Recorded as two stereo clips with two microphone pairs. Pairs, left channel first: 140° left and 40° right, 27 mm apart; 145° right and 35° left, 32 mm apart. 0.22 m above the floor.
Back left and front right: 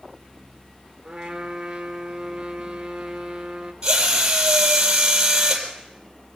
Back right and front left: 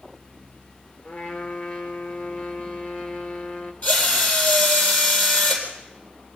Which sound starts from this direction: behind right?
A trumpet, at 1.0 s.